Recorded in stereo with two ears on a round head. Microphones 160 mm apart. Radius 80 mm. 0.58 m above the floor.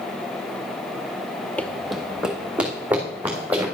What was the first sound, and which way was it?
Running footsteps, 10° left (ahead or behind).